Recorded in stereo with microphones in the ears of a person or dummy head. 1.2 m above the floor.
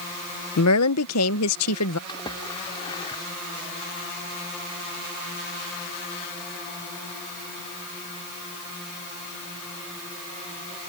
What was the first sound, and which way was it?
A woman speaking, 80° left.